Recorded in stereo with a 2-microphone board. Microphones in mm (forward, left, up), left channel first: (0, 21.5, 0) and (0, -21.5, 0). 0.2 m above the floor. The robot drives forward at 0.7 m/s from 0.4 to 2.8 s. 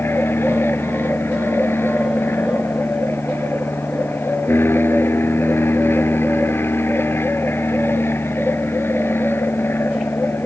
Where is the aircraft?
60° left (ahead or behind).